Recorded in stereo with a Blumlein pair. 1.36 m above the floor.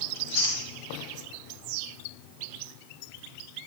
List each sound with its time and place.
0.1 s chewing: 50° left, 2.5 m